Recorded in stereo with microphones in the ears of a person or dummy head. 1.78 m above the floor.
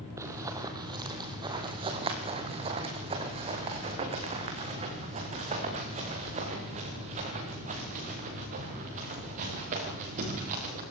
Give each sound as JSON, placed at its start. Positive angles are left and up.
{"t": 0.2, "sound": "running footsteps", "side_deg": -15, "distance_m": 2.5}